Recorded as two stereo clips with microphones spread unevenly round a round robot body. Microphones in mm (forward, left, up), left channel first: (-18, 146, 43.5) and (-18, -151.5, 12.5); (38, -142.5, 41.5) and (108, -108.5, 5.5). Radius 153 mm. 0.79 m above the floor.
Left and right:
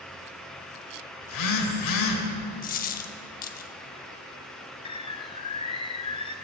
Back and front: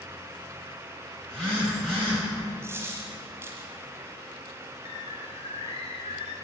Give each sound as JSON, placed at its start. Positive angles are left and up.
{"t": 1.2, "sound": "a phone buzzing", "azimuth_deg": 115, "distance_m": 1.8}
{"t": 2.6, "sound": "a dropped coin", "azimuth_deg": 120, "distance_m": 0.7}
{"t": 4.8, "sound": "a bird", "azimuth_deg": 165, "distance_m": 0.6}